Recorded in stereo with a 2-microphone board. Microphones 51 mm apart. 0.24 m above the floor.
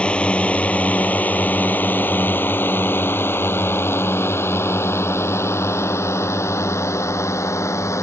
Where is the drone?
20° left (ahead or behind); by 8.0 s 65° left (ahead or behind).